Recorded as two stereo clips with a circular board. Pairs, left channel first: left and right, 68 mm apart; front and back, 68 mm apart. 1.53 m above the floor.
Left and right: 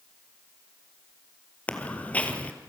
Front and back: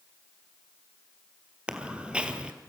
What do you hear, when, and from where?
1.7 s footsteps: 130° left, 1.6 m